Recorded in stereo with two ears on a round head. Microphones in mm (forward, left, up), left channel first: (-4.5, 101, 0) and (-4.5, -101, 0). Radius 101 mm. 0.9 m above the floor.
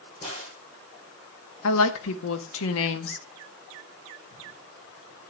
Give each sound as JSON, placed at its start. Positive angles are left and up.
{"t": 0.2, "sound": "a crack", "side_deg": 35, "distance_m": 7.5}
{"t": 1.6, "sound": "a woman speaking", "side_deg": 70, "distance_m": 1.2}